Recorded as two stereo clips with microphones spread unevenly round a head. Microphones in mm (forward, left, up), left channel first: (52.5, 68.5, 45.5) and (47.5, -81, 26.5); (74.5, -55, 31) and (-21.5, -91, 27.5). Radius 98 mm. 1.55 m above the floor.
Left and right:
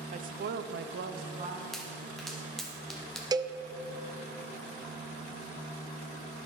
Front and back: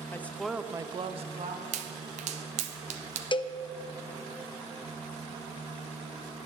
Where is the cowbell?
25° right, 0.6 m.